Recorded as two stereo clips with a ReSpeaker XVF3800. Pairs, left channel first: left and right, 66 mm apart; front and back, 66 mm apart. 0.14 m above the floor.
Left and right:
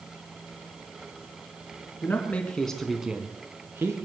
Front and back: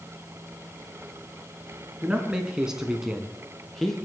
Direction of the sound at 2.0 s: 115° left.